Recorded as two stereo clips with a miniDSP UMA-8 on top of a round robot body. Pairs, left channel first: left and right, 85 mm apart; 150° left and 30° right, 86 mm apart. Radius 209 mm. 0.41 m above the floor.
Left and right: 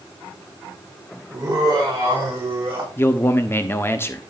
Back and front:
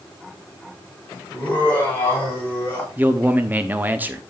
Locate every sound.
1.3 s laughter: 140° right, 7 m; by 2.9 s 145° right, 6 m
3.0 s a man speaking: 35° left, 1.3 m